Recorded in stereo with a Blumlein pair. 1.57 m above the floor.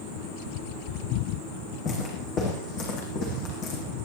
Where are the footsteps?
30° left, 7 m; by 3.8 s 40° left, 6.5 m.